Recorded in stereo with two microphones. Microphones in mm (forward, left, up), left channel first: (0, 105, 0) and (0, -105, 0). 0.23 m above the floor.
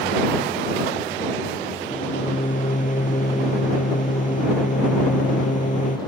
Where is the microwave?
35° left (ahead or behind).